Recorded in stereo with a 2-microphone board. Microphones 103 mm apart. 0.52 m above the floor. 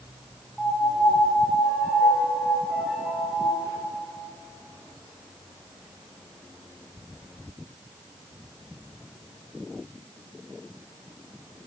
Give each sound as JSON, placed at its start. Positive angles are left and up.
{"t": 0.6, "sound": "a piano", "side_deg": 0, "distance_m": 4.5}